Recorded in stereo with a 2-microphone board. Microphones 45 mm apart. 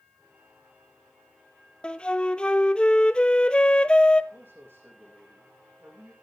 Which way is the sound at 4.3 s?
60° right (ahead or behind).